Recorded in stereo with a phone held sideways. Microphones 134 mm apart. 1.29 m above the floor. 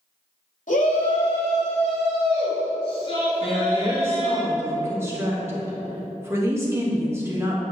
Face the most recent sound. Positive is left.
turn(degrees=-20)  # may be behind; listen again after turning